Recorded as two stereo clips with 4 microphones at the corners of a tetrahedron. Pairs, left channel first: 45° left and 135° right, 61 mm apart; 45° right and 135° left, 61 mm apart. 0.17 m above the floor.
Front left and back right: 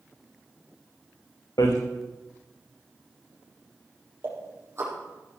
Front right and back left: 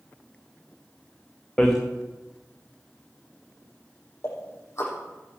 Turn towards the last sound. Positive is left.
turn(degrees=-85)